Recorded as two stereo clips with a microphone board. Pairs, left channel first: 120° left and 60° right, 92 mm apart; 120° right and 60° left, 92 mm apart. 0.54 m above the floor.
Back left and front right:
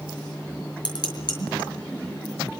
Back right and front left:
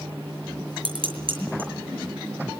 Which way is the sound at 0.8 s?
85° left.